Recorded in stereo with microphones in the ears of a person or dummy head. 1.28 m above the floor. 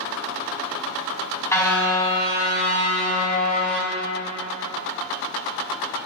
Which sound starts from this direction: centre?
A car horn, at 1.5 s.